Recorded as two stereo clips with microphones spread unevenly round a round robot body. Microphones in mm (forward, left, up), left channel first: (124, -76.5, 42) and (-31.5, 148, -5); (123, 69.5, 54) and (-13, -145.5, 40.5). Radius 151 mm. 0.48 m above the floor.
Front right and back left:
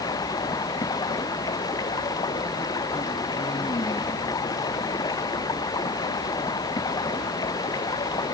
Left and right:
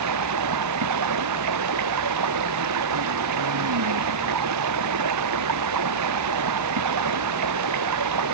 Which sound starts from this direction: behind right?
Running water, at 0.0 s.